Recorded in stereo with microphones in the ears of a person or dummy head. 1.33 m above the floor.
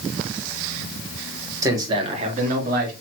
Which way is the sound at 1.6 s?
15° right (ahead or behind).